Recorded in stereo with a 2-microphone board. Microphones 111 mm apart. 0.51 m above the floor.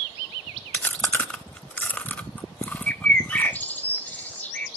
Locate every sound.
0.7 s chewing: 15° left (ahead or behind), 0.6 m
2.9 s a bird: 15° left (ahead or behind), 1.1 m